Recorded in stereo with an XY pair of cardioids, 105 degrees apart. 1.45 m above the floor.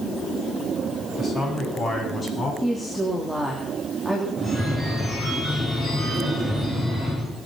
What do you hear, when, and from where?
1.2 s a man speaking: 25° left, 10 m
2.6 s a woman speaking: straight ahead, 3.5 m
4.4 s a phone ringing: 15° left, 9.5 m